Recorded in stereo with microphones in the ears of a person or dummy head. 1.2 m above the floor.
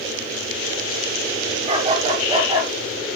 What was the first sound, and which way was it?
A dog barking, 35° right (ahead or behind).